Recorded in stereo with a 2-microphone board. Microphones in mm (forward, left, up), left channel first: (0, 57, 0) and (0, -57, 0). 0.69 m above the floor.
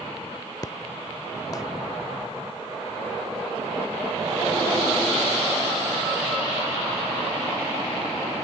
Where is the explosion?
30° left (ahead or behind).